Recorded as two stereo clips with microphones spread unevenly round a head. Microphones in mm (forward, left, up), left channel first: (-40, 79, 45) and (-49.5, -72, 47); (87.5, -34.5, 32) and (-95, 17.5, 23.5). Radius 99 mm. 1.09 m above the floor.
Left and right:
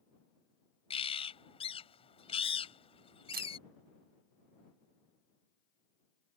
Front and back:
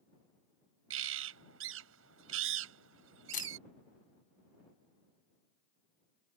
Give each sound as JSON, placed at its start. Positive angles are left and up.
{"t": 0.9, "sound": "a bird", "azimuth_deg": 140}
{"t": 3.3, "sound": "a camera shutter", "azimuth_deg": -65}